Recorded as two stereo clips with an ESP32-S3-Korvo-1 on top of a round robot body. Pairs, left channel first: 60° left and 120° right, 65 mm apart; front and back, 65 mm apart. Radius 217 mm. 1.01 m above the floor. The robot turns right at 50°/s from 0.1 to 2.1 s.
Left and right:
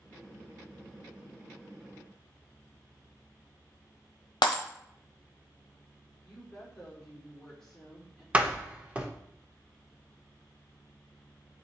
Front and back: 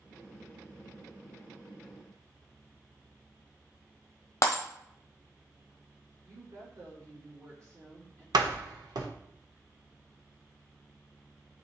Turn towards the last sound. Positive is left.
turn(degrees=165)